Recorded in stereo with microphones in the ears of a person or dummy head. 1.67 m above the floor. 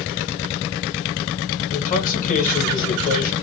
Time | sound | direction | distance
1.7 | a man speaking | 45° left (ahead or behind) | 1.5 m